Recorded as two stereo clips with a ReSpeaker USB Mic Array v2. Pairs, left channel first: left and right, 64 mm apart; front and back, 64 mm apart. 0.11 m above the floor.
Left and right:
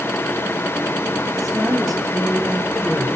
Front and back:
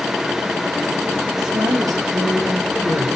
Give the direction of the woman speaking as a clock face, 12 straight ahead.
6 o'clock.